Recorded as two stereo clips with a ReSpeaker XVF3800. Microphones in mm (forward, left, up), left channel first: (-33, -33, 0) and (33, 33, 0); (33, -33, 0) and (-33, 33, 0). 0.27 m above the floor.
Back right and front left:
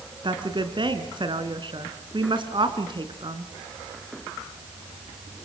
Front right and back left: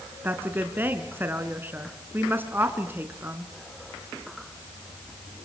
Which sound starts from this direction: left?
A woman speaking, at 0.2 s.